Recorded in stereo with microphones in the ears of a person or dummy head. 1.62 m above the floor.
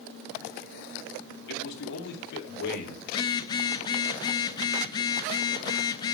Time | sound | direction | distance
1.5 | a man speaking | 70° left (ahead or behind) | 3 m
3.1 | a phone buzzing | 30° left (ahead or behind) | 0.7 m